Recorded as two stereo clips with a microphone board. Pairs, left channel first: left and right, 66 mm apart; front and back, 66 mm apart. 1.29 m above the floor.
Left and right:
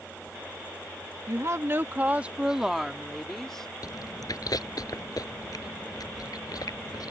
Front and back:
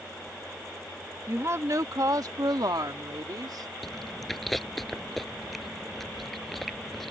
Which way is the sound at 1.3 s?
125° right.